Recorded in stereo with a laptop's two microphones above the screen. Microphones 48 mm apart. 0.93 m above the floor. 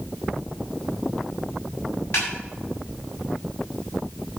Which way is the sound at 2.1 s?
55° left (ahead or behind).